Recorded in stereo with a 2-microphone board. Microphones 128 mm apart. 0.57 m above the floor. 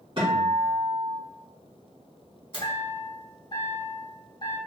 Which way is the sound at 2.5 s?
40° left (ahead or behind).